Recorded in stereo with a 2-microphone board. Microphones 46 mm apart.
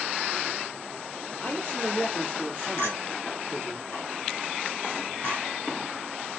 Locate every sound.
1.4 s a man speaking: 35° left (ahead or behind), 4.5 m
2.8 s a clink: 70° left (ahead or behind), 4 m